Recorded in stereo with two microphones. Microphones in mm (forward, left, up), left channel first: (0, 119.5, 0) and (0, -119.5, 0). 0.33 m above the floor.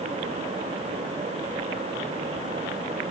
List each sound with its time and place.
Only background noise.